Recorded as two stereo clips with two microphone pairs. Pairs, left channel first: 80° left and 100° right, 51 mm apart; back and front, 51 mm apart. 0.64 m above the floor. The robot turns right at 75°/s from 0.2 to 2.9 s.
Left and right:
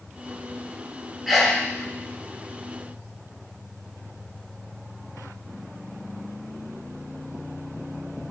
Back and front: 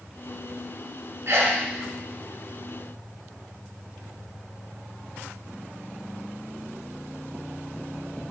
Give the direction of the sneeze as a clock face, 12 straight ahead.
1 o'clock.